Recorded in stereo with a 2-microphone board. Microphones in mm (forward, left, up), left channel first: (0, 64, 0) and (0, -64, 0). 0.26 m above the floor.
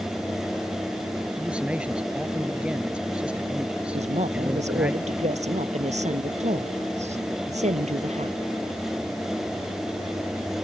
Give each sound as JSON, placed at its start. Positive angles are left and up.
{"t": 1.4, "sound": "a man speaking", "side_deg": -10}
{"t": 3.9, "sound": "a woman speaking", "side_deg": -75}